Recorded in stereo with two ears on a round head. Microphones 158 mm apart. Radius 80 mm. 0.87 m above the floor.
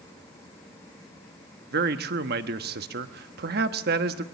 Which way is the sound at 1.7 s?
60° right (ahead or behind).